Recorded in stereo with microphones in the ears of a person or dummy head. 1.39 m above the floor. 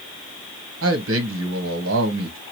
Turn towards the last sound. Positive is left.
turn(degrees=-65)  # may be behind; listen again after turning